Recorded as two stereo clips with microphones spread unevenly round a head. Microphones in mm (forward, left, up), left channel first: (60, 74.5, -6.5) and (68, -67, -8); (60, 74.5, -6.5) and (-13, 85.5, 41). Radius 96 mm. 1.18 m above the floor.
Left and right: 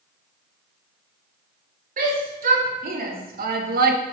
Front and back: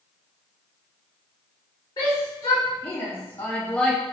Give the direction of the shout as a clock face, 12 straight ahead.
2 o'clock.